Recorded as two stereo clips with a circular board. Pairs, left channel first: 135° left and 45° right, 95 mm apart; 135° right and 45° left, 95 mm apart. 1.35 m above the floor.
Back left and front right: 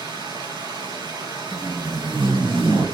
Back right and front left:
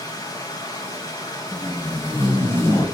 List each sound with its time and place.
0.0 s running water: 85° right, 5 m
1.5 s tape being pulled: 70° right, 5.5 m